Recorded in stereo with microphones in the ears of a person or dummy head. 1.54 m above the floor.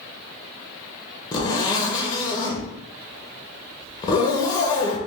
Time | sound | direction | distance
1.3 | a zipper | 25° left (ahead or behind) | 0.7 m